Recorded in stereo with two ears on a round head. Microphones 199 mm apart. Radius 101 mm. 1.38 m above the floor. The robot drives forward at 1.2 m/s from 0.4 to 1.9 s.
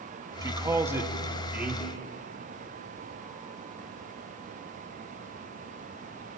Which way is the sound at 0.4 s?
15° right (ahead or behind).